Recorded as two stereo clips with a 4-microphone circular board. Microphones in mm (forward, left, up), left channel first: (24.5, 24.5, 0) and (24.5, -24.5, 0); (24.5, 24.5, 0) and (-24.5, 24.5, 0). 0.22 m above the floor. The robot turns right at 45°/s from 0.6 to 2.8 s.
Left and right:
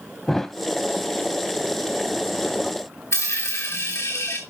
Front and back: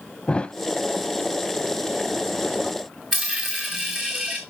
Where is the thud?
20° left, 0.5 m.